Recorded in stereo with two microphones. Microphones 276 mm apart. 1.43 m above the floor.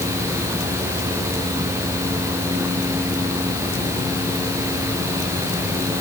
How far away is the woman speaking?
I don't hear a woman speaking.